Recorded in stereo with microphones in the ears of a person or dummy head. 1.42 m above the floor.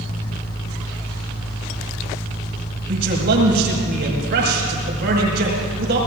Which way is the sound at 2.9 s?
55° right (ahead or behind).